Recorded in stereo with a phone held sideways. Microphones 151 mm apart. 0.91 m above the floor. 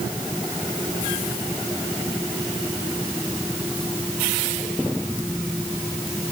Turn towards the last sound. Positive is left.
No sound to turn to.